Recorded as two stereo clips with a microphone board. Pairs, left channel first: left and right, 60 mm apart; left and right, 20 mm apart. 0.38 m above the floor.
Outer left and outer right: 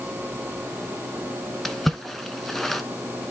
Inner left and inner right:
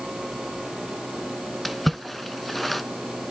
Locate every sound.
1.6 s a splash: 5° left (ahead or behind), 0.9 m